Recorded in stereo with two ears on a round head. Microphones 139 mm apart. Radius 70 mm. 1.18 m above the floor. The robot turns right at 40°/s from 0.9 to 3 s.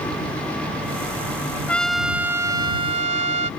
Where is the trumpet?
170° left; by 3.5 s 135° right.